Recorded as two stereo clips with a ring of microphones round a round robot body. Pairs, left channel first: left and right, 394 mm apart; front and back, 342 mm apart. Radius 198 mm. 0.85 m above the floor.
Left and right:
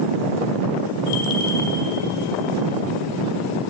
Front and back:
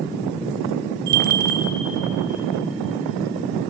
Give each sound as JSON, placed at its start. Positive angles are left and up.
{"t": 1.1, "sound": "a bell", "azimuth_deg": 145, "distance_m": 0.9}